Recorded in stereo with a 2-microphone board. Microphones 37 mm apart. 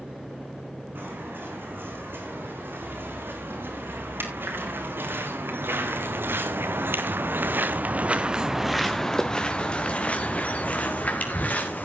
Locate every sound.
0.9 s footsteps: 70° right (ahead or behind), 7.5 m; by 11.8 s 50° left (ahead or behind), 4 m